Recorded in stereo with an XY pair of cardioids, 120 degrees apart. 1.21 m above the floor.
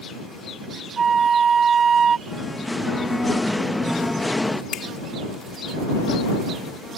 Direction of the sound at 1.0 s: 40° right.